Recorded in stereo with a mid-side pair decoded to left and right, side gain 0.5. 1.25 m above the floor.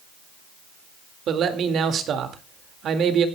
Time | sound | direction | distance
1.3 | a man speaking | 60° right | 2 m